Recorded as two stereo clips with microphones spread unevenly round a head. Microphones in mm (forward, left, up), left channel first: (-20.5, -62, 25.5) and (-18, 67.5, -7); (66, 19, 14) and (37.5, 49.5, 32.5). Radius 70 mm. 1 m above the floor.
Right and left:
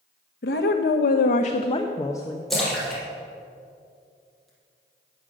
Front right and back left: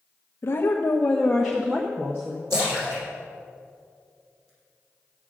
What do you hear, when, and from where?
0.4 s a woman speaking: 70° right, 0.7 m; by 2.4 s 165° right, 1.0 m
2.5 s a splash: 175° right, 4.5 m